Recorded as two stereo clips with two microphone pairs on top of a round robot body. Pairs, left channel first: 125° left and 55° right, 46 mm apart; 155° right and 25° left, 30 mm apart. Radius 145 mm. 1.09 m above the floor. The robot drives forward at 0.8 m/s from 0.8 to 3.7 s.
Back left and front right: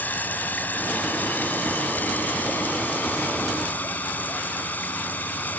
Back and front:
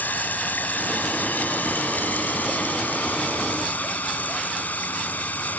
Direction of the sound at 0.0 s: Straight behind.